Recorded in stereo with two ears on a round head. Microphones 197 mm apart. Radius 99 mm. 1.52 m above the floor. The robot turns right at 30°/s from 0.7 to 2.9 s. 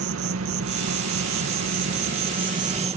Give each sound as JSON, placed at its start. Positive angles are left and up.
{"t": 0.0, "sound": "an insect", "azimuth_deg": -95}